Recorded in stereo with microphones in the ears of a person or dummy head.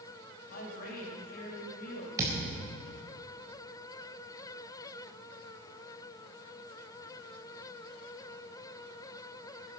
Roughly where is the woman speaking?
Left.